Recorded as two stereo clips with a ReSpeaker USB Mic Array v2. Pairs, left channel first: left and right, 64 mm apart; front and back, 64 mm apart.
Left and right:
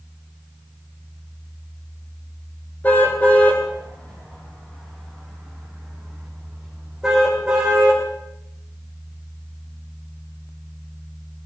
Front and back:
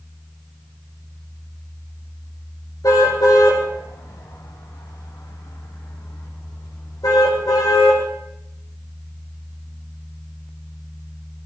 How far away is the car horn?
About 6.5 m.